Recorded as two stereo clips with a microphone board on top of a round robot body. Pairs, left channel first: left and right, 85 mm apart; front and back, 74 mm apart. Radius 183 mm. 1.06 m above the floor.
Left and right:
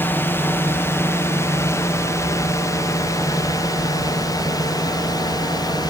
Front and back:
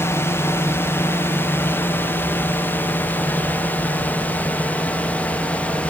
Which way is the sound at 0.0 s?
35° left.